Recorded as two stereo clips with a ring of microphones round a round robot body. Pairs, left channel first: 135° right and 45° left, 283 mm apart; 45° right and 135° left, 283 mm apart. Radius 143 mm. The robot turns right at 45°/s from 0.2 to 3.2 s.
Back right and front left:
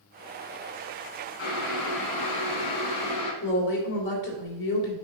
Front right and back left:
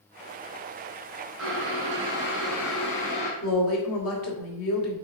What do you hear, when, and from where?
1.4 s boiling: 175° left, 3.5 m; by 3.3 s 100° right, 3.5 m
3.4 s a woman speaking: 85° right, 3 m